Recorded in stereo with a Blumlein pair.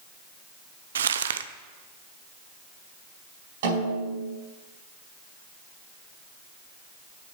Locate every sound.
0.9 s crumpling: 65° right, 0.5 m
3.6 s a snare drum: 55° right, 4.5 m